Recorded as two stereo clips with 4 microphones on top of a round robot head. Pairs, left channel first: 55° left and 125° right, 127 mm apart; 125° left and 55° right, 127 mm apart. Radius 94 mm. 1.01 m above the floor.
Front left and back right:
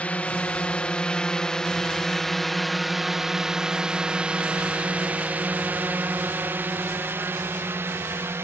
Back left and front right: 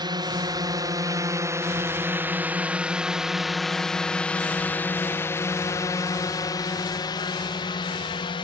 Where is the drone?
20° right; by 8.4 s 165° left.